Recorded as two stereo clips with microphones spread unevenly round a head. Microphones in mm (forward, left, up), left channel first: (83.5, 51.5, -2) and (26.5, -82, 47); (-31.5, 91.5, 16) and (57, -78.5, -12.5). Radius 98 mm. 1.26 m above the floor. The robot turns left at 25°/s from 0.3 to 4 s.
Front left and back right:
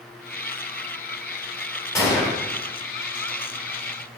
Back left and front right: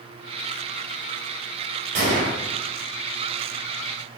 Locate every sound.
1.9 s a gunshot: 10° right, 3.5 m; by 2.4 s 20° right, 3.5 m